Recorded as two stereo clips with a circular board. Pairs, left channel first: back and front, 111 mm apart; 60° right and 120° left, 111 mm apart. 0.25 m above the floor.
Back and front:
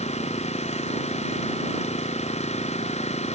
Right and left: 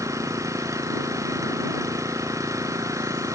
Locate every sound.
0.0 s an engine running: straight behind